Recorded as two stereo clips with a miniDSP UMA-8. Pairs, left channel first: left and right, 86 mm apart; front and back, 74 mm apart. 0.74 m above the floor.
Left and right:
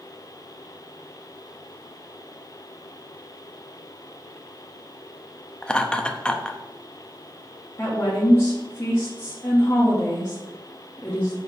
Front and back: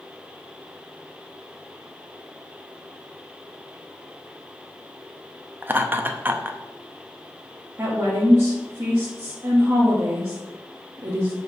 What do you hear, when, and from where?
5.6 s laughter: 160° left, 0.7 m
7.8 s a woman speaking: 140° left, 1.3 m